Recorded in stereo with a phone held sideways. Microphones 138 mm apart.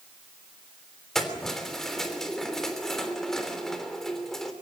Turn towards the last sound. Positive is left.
turn(degrees=5)  # may be behind; listen again after turning